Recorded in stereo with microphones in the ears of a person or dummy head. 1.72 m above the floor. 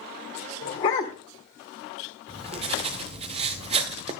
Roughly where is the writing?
Right.